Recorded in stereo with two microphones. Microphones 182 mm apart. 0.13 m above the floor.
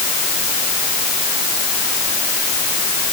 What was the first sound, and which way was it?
Only background noise.